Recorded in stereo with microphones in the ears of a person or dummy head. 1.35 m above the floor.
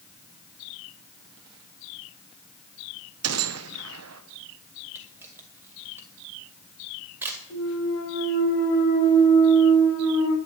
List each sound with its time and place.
3.2 s a gunshot: 75° right (ahead or behind), 0.9 m
5.0 s a camera shutter: 10° right (ahead or behind), 2 m
7.5 s a clunk: 65° left (ahead or behind), 3 m